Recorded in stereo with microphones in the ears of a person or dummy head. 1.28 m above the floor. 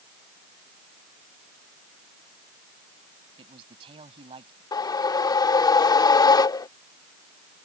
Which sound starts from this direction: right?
A man speaking, at 3.4 s.